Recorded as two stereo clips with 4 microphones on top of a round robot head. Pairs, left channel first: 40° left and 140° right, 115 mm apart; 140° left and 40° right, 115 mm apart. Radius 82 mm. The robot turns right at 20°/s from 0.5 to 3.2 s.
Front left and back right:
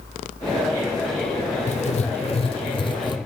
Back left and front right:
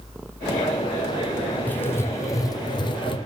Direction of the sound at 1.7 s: 65° left.